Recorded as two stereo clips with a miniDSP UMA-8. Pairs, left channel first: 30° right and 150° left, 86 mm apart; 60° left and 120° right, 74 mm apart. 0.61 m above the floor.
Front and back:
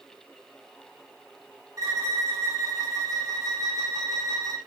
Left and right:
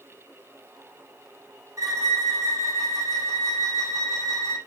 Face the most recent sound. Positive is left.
turn(degrees=-160)